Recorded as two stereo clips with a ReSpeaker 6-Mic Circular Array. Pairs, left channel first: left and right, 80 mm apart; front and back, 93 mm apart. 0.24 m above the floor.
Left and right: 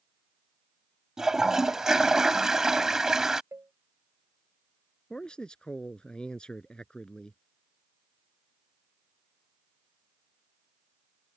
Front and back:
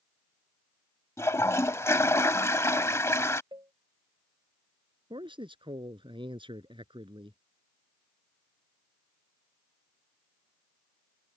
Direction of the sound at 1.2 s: 15° right.